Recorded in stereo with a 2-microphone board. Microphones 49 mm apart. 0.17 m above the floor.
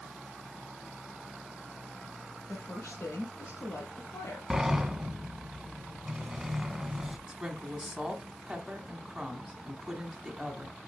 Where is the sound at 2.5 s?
65° left (ahead or behind), 3 m.